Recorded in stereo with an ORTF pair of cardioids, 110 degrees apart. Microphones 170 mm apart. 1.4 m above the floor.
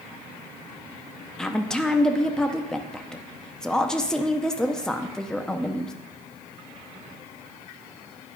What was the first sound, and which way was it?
A woman speaking, 5° left.